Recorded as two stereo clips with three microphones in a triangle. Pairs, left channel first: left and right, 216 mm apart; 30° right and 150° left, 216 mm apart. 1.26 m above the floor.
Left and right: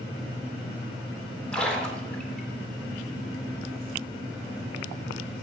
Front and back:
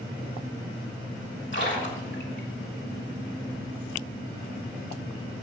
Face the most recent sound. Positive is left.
turn(degrees=5)